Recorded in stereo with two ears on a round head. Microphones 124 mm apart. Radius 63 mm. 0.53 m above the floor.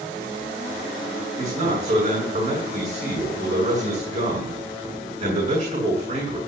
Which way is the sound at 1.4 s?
55° right (ahead or behind).